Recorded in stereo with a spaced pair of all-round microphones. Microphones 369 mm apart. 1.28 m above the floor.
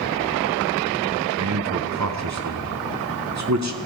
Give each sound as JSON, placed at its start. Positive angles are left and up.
{"t": 1.4, "sound": "a man speaking", "side_deg": -45, "distance_m": 0.7}